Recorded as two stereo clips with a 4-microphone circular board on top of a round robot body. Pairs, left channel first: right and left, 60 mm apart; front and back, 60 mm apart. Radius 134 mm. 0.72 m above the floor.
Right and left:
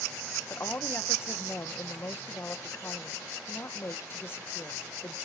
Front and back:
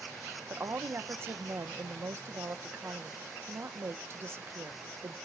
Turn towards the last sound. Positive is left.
turn(degrees=-140)